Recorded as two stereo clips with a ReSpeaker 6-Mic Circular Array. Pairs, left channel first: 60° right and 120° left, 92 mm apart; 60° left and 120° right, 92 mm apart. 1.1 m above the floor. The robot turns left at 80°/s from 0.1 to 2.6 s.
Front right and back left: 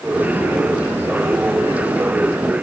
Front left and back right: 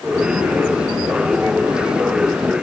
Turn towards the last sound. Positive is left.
No sound to turn to.